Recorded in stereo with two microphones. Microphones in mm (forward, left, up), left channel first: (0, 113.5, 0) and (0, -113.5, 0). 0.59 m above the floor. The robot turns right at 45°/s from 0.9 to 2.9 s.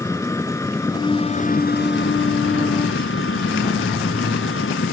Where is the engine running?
15° left; by 4.9 s 105° left.